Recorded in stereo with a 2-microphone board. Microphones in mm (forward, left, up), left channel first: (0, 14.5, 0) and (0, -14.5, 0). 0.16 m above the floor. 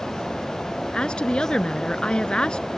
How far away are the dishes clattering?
I don't hear dishes clattering.